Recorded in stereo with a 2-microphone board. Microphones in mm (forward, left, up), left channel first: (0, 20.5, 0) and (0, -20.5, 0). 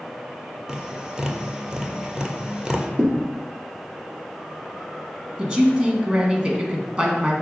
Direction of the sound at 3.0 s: 45° right (ahead or behind).